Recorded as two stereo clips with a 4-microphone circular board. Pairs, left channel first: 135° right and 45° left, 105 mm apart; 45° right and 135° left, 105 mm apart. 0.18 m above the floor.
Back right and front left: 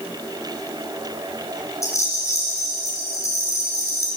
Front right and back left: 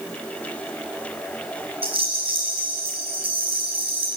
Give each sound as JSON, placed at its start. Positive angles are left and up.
{"t": 1.8, "sound": "a rattle", "azimuth_deg": 165, "distance_m": 9.0}